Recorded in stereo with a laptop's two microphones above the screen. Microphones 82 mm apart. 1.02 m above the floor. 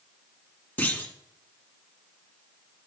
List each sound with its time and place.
0.8 s a clunk: 20° left (ahead or behind), 1.6 m